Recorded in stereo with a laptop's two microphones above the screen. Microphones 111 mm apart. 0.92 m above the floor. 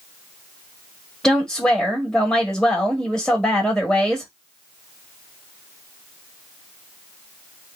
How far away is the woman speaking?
About 1.5 m.